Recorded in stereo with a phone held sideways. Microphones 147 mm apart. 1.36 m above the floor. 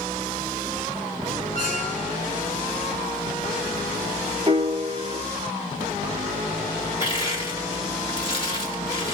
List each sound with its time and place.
1.6 s a squeak: 55° left (ahead or behind), 2.5 m
4.5 s a piano: 30° right (ahead or behind), 0.9 m
7.0 s crushing: 35° left (ahead or behind), 1.7 m